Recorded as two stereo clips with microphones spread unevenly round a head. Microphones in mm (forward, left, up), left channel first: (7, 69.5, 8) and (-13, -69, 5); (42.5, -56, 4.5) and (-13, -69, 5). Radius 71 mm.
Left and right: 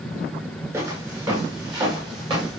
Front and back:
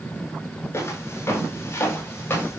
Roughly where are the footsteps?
Ahead right.